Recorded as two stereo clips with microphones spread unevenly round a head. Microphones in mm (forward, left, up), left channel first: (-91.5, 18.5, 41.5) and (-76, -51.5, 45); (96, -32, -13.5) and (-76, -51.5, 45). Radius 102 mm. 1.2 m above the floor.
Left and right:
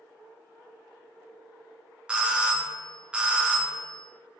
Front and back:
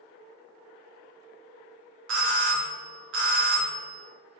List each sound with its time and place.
2.1 s a doorbell: 155° right, 0.8 m